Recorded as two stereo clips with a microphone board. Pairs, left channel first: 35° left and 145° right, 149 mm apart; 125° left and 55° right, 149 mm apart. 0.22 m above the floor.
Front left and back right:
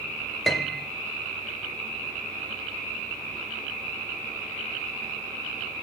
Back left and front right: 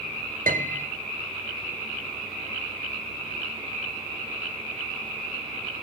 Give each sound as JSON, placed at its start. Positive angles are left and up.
{"t": 0.5, "sound": "a piano", "azimuth_deg": -55, "distance_m": 2.0}